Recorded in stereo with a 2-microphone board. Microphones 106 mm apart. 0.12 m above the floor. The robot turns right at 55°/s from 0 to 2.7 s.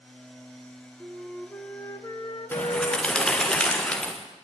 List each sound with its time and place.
1.0 s a flute: 10° right, 1.4 m; by 3.5 s 85° left, 1.4 m
2.5 s a bird: 20° left (ahead or behind), 4 m; by 4.1 s 10° left (ahead or behind), 4 m